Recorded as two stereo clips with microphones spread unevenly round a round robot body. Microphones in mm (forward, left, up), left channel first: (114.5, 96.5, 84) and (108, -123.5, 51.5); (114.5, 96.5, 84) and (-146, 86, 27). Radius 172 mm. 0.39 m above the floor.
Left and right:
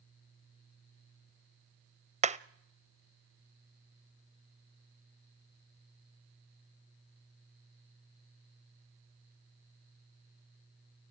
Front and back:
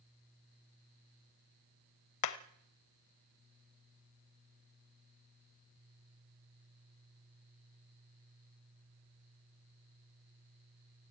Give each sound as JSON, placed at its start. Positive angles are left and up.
{"t": 2.2, "sound": "hammering", "azimuth_deg": -35, "distance_m": 0.9}